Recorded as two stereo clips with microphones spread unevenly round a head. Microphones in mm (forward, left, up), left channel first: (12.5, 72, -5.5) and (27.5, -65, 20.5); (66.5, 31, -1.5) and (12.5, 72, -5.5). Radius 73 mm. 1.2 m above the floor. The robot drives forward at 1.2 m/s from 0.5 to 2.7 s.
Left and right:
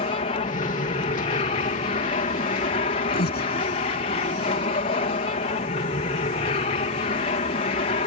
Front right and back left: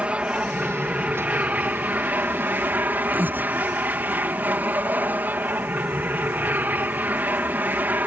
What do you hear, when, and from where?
0.0 s an aircraft: 80° left; by 8.1 s 90° left
3.1 s breathing: 80° left